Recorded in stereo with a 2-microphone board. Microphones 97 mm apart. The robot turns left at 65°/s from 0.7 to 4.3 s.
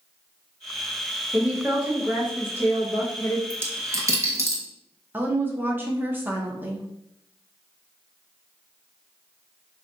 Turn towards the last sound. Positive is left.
turn(degrees=-20)  # may be behind; listen again after turning